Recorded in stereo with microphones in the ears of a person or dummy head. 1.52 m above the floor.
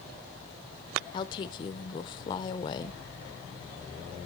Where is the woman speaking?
30° left (ahead or behind), 0.7 m.